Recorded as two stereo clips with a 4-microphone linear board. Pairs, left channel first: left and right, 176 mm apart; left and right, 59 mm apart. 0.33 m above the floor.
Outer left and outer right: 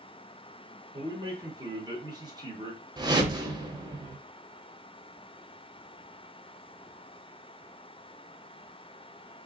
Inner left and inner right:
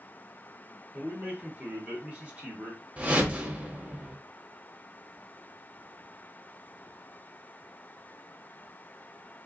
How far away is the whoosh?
About 0.6 m.